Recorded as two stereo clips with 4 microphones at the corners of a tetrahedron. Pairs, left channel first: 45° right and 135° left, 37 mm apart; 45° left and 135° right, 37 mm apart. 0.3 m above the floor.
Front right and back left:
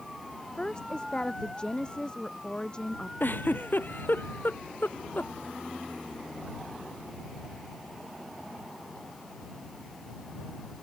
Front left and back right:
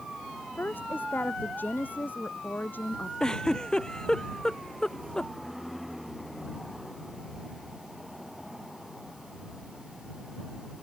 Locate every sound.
0.6 s a woman speaking: 20° left
3.2 s a giggle: 25° right